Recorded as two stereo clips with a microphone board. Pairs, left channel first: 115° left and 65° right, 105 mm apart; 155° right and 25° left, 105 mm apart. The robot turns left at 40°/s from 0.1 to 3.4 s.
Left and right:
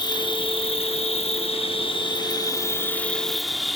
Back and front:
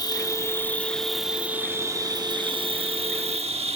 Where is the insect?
155° left, 0.8 m; by 3.8 s 20° left, 0.8 m.